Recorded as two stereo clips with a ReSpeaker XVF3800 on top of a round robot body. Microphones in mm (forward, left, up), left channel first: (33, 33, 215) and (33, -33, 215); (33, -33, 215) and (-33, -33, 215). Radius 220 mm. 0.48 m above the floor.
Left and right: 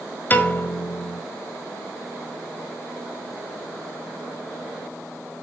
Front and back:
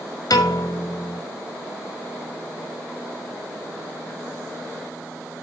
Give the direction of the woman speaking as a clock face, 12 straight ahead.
No woman speaking in this recording.